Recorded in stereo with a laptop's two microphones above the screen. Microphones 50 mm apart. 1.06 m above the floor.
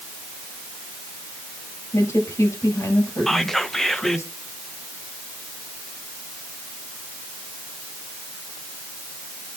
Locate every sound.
1.9 s a woman speaking: 85° left, 6.5 m
3.3 s whispering: 5° left (ahead or behind), 0.7 m